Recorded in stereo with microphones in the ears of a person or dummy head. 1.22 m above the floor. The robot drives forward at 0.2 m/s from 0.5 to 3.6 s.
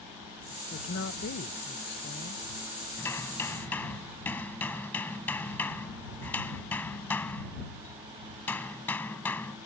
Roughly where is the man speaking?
Left.